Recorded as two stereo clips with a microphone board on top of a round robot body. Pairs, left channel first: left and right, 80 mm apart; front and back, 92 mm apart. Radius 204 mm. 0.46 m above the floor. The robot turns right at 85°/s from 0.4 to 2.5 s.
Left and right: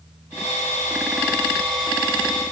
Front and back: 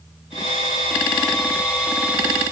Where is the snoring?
No snoring in this recording.